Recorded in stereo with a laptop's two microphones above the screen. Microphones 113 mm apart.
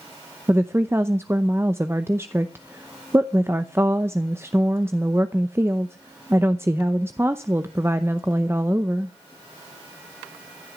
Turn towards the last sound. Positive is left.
turn(degrees=-20)  # may be behind; listen again after turning